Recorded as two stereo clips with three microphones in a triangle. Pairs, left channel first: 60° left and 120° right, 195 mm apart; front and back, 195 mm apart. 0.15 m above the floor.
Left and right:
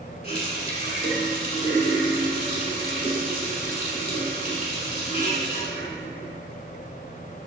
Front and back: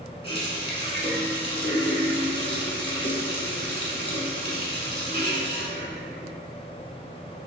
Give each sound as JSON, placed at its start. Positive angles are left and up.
{"t": 0.2, "sound": "a running tap", "azimuth_deg": 35, "distance_m": 0.9}